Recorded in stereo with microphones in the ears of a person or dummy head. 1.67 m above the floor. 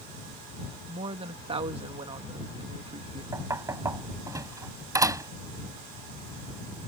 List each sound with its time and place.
0.9 s a woman speaking: 35° right (ahead or behind)
3.3 s knocking: 20° right (ahead or behind)